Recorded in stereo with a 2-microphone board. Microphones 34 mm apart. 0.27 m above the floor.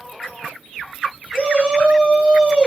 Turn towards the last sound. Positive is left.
turn(degrees=-25)  # may be behind; listen again after turning